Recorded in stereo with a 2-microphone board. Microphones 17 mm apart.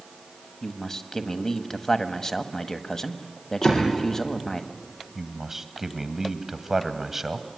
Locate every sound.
0.6 s a man speaking: 30° left (ahead or behind), 1.3 m
3.6 s a door slam: 75° left (ahead or behind), 6.5 m
5.2 s a man speaking: 20° right (ahead or behind), 1.4 m